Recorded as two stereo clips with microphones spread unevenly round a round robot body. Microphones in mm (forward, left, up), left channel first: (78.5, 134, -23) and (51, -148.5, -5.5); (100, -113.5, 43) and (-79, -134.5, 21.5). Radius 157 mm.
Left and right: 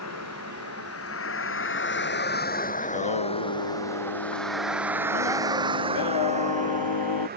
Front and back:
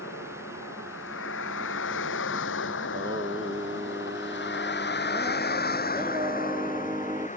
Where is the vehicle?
55° left; by 7.4 s 40° right.